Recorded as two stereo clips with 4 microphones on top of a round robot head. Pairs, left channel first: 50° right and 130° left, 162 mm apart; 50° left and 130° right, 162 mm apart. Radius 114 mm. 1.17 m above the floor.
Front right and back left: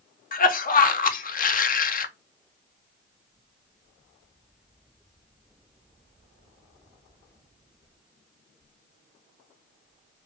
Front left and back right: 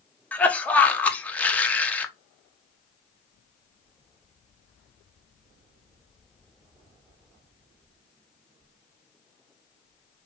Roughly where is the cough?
Ahead right.